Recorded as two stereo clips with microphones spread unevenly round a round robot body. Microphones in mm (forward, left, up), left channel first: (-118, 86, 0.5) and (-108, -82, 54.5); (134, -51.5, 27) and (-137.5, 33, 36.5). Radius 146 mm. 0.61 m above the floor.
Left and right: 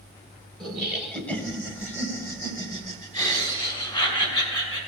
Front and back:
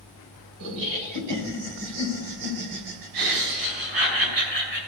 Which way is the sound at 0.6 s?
Straight behind.